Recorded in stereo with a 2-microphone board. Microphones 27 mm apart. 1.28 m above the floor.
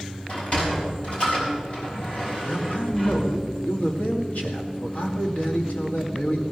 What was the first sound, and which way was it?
A sliding door, 50° left (ahead or behind).